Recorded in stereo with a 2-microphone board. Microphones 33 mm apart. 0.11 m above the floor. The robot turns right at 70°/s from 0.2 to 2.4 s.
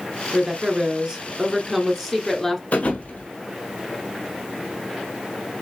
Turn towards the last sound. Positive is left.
turn(degrees=60)  # may be behind; listen again after turning